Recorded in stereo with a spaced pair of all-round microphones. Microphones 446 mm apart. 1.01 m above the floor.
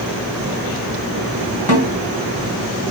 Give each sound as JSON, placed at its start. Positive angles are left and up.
{"t": 1.7, "sound": "a snare drum", "side_deg": 55, "distance_m": 1.3}